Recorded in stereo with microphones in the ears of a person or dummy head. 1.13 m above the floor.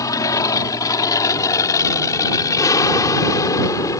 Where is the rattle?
I don't hear a rattle.